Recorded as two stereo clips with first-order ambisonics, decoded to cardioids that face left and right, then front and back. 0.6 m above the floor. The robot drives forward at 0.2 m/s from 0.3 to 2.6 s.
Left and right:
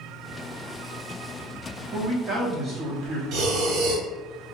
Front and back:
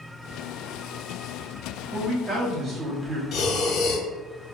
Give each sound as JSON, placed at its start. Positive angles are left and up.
{"t": 1.9, "sound": "a man speaking", "azimuth_deg": -115, "distance_m": 0.7}
{"t": 3.3, "sound": "breathing", "azimuth_deg": -50, "distance_m": 0.5}